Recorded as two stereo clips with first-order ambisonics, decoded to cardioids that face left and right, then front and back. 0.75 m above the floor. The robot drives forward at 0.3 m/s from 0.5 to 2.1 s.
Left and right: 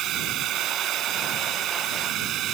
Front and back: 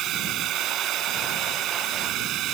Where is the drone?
135° right.